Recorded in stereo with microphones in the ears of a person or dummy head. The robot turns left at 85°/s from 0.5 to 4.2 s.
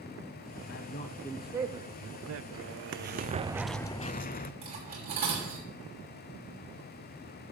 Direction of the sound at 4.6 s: 40° right (ahead or behind).